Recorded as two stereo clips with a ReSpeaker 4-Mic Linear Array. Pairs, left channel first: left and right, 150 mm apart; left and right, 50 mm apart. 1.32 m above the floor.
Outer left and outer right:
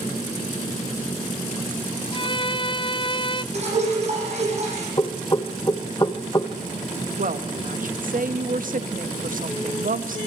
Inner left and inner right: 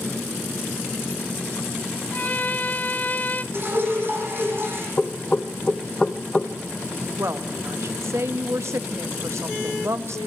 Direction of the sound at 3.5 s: 45° right (ahead or behind).